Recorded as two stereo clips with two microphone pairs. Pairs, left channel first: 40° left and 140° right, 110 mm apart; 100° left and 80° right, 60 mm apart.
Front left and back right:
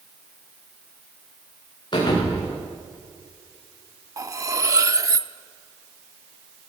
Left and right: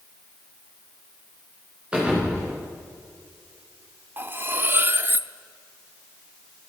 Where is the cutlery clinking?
100° right, 0.6 m.